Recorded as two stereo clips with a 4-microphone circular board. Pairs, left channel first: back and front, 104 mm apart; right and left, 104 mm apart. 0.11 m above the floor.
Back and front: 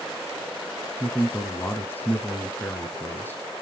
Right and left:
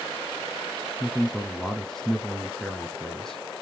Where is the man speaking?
165° right, 1.1 m.